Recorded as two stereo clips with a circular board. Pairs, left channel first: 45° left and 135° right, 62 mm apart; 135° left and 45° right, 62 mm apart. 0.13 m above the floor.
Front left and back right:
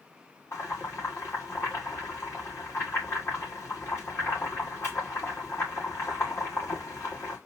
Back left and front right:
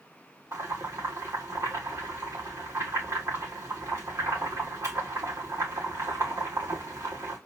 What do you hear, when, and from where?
0.5 s boiling: straight ahead, 7 m